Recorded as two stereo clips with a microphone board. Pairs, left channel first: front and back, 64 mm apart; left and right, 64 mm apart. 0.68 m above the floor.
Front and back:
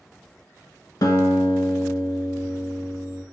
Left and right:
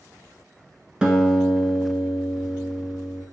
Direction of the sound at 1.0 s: 15° right.